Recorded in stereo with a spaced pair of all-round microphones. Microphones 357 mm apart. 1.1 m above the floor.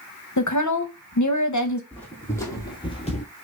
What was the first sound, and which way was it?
A woman speaking, 50° left (ahead or behind).